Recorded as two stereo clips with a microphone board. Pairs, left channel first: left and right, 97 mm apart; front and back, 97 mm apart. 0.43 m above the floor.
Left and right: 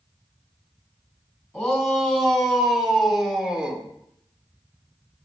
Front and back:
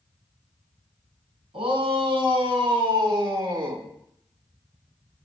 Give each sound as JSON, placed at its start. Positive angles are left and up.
{"t": 1.5, "sound": "a shout", "azimuth_deg": 180, "distance_m": 3.0}